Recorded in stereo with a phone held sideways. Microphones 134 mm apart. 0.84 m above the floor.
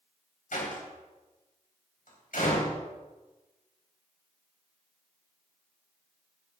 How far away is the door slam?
About 4 m.